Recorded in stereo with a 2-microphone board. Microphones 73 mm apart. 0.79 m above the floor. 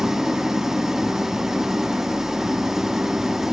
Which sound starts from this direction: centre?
An engine running, at 0.0 s.